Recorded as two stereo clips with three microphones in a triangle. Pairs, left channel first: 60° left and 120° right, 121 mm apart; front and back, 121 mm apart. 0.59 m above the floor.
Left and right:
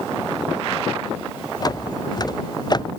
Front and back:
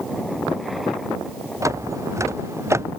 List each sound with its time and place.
1.6 s footsteps: 115° left